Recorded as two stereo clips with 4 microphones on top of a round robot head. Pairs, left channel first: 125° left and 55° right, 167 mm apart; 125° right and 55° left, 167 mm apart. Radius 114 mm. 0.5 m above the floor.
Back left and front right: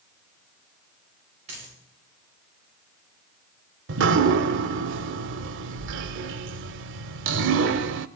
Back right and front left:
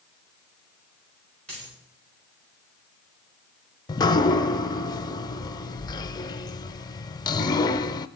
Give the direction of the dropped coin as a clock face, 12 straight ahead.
12 o'clock.